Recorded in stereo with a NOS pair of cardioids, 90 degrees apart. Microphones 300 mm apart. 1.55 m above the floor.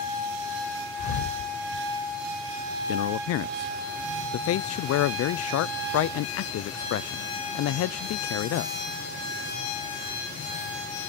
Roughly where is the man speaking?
Ahead left.